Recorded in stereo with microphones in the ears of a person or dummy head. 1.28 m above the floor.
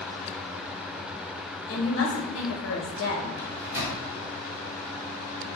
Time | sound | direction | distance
1.7 | a woman speaking | 65° left (ahead or behind) | 0.9 m
3.4 | a microwave | 15° right (ahead or behind) | 0.8 m